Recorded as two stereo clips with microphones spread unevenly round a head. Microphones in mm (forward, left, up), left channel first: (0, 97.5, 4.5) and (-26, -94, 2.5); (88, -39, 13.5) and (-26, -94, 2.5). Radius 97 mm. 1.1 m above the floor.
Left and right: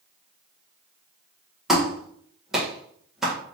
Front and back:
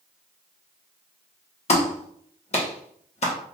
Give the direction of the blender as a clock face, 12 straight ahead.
I don't hear a blender.